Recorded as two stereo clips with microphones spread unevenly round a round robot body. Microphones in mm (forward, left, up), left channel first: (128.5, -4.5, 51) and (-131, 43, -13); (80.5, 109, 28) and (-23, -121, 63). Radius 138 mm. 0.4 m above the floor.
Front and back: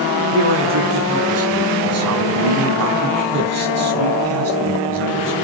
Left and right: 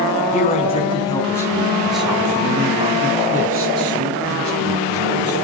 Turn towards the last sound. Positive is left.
turn(degrees=-150)